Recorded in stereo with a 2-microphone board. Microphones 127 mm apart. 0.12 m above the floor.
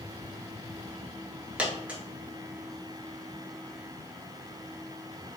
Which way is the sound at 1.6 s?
10° right (ahead or behind).